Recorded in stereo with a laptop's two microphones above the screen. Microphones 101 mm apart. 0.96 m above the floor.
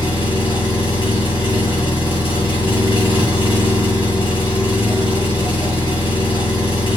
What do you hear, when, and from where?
0.0 s an engine running: 65° left (ahead or behind), 1.4 m